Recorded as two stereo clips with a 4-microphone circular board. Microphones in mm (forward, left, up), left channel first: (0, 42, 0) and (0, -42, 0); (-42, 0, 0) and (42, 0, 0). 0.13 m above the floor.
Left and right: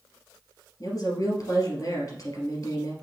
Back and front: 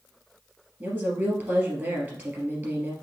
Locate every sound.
0.8 s a woman speaking: 60° left, 2.5 m